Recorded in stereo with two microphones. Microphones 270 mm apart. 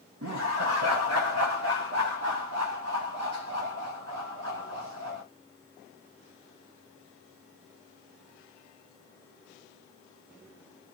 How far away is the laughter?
About 0.6 m.